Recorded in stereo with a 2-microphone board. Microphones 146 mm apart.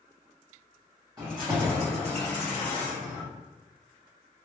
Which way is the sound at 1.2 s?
30° right (ahead or behind).